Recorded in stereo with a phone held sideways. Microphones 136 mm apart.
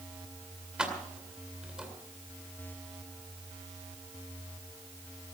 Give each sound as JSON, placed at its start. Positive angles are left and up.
{"t": 0.8, "sound": "keys jangling", "side_deg": -5, "distance_m": 2.0}